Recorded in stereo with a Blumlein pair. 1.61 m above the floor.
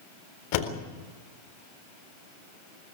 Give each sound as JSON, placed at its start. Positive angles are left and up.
{"t": 0.5, "sound": "a door slam", "azimuth_deg": 50, "distance_m": 4.0}